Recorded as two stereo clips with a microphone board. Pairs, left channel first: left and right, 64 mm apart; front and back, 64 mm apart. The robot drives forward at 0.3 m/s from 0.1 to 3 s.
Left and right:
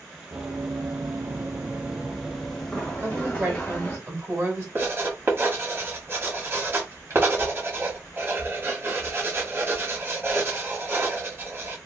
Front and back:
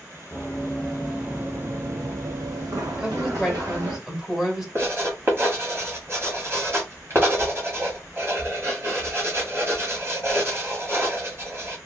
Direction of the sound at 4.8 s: 135° right.